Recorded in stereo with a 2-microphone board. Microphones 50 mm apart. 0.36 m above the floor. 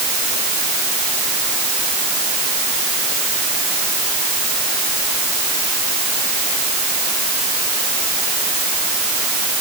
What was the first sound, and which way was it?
Only background noise.